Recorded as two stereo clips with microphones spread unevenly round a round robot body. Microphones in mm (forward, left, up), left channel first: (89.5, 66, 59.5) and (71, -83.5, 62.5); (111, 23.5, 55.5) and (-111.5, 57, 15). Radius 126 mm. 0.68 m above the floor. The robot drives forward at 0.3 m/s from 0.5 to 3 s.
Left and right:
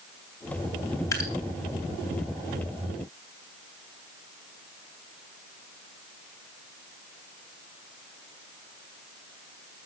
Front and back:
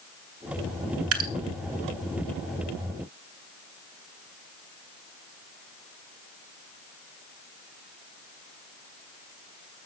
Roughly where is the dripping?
Behind left.